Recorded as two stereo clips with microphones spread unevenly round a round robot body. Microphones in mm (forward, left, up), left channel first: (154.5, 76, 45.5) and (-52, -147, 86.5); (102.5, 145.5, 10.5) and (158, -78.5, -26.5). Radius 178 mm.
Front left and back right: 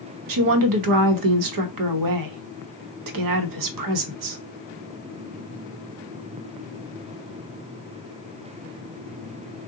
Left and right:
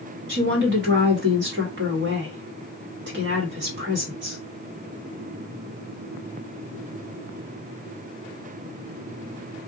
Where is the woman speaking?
115° right, 0.8 m.